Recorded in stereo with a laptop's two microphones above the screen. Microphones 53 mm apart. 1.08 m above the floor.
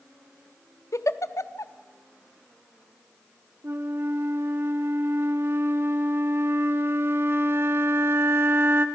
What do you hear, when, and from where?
0.9 s a giggle: 70° left (ahead or behind), 0.9 m
3.6 s a flute: 45° right (ahead or behind), 1.4 m